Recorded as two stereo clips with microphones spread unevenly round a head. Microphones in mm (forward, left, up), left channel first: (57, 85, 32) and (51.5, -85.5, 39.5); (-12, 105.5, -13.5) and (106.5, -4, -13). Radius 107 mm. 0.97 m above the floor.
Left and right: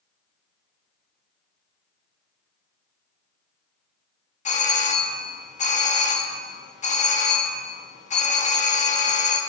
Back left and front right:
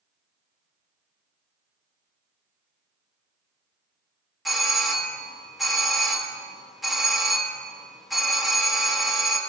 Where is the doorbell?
45° left, 1.3 m.